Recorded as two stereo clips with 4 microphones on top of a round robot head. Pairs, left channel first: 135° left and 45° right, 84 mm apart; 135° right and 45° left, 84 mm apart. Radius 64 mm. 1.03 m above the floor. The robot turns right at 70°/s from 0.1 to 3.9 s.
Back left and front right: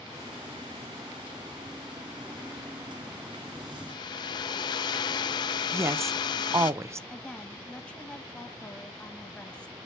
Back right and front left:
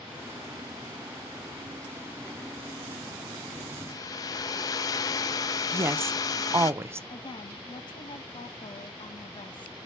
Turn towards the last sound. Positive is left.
turn(degrees=-150)